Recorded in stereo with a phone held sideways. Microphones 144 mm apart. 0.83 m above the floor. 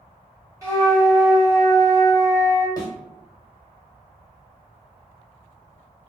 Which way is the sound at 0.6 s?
25° right (ahead or behind).